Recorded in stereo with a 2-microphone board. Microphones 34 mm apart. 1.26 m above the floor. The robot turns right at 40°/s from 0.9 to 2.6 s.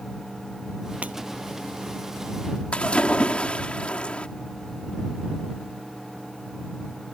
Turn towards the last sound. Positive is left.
turn(degrees=35)  # may be behind; listen again after turning